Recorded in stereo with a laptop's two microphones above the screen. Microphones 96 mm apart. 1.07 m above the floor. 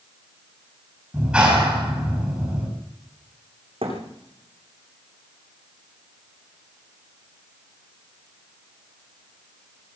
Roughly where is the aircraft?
I don't hear an aircraft.